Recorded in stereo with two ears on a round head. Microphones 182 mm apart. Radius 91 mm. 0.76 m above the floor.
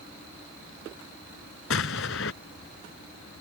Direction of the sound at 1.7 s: 70° left (ahead or behind).